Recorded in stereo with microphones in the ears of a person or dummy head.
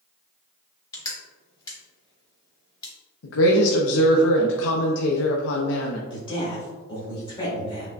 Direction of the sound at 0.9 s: 25° left (ahead or behind).